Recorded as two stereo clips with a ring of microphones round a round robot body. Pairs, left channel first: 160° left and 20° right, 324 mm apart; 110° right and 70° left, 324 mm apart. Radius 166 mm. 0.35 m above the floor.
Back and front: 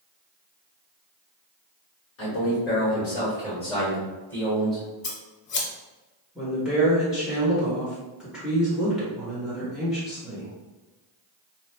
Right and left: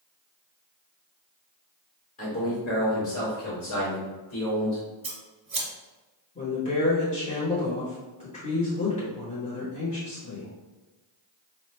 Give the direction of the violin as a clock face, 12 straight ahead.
No violin in this recording.